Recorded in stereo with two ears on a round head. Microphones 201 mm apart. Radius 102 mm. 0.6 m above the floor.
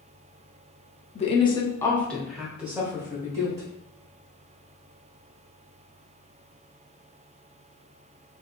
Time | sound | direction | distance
1.1 | a woman speaking | 30° left (ahead or behind) | 0.7 m